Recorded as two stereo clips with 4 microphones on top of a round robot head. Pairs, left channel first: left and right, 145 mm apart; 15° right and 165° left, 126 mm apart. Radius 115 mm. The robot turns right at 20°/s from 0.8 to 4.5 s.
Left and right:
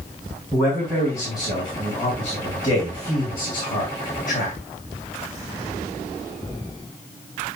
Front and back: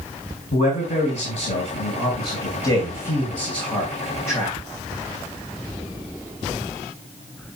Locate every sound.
0.5 s a man speaking: 10° right, 3.5 m; by 4.6 s 60° left, 3.5 m